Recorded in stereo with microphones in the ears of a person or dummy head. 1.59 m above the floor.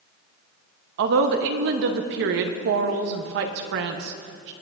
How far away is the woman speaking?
About 0.8 m.